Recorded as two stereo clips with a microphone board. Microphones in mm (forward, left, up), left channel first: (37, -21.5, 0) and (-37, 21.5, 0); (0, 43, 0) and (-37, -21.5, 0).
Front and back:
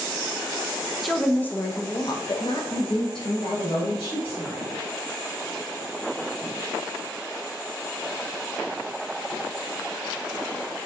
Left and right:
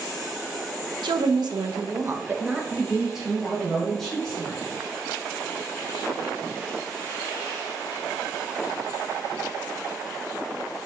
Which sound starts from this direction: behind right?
A woman speaking, at 1.0 s.